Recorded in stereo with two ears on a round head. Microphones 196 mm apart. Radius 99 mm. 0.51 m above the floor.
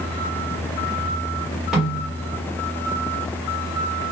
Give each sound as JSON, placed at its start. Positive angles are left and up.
{"t": 1.7, "sound": "a snare drum", "side_deg": 0, "distance_m": 1.7}